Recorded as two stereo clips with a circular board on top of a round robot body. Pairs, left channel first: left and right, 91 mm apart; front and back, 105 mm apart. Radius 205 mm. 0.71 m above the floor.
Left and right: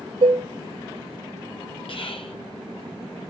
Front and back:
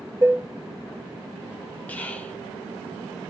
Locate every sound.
0.2 s dishes clattering: 115° right, 0.8 m
1.9 s whispering: 75° left, 2 m